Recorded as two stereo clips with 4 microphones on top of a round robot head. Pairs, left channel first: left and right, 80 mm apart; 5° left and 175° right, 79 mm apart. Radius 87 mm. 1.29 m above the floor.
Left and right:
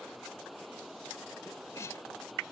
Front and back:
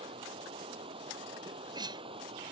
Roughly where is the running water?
Behind.